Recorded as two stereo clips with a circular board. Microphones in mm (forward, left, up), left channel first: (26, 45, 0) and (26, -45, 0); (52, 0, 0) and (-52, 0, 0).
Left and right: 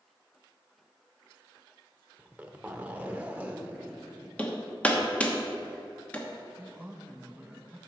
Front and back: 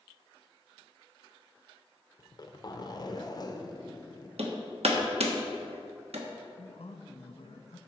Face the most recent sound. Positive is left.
turn(degrees=-15)